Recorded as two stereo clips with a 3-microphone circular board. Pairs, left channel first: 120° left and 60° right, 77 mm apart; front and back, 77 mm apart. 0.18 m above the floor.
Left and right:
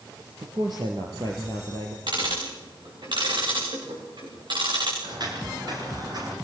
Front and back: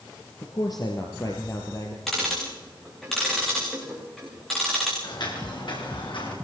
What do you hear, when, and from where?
0.4 s a man speaking: 30° right, 3 m; by 2.0 s 45° right, 4.5 m
2.1 s ticking: 85° right, 8.5 m
5.0 s footsteps: 30° right, 9.5 m; by 6.3 s 20° right, 9.5 m